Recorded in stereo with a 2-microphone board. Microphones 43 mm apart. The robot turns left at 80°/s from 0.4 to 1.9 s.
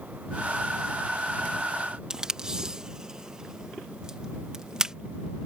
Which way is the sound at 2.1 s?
15° right (ahead or behind).